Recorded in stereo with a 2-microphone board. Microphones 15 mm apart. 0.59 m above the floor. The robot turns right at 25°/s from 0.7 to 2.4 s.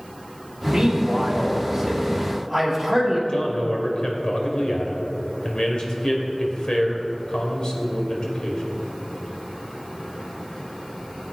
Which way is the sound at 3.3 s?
65° left (ahead or behind).